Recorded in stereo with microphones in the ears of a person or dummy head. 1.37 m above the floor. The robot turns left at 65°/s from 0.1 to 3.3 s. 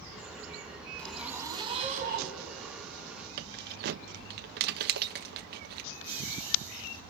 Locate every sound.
1.0 s a zipper: 10° left, 2 m; by 2.4 s 80° right, 2 m
3.4 s keys jangling: 65° right (ahead or behind), 1.0 m
5.9 s laughter: 10° left (ahead or behind), 4 m